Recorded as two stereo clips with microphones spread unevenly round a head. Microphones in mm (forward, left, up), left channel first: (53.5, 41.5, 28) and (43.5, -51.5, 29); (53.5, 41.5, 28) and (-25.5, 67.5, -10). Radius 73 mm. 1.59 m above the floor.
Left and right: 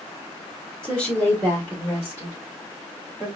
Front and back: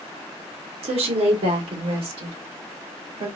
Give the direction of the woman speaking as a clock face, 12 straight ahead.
6 o'clock.